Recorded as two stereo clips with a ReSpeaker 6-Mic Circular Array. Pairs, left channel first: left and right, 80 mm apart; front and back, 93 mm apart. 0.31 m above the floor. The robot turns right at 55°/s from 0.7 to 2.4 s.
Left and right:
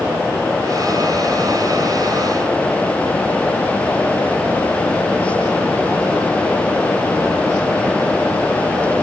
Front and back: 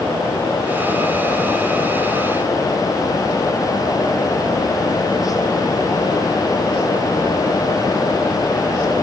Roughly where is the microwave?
No microwave in this recording.